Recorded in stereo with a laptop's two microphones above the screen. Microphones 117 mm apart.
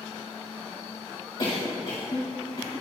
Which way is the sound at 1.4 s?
55° left (ahead or behind).